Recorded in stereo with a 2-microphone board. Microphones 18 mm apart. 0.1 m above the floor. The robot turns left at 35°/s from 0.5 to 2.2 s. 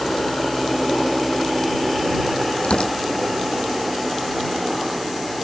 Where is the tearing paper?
80° left.